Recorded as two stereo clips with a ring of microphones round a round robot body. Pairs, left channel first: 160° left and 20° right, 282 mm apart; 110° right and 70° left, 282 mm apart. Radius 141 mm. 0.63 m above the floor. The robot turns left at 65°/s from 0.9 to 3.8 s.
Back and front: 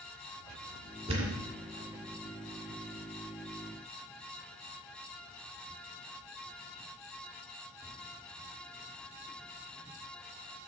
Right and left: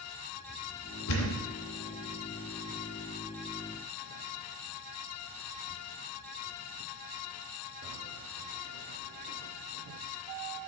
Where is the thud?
90° right, 2 m; by 1.5 s 120° right, 2 m.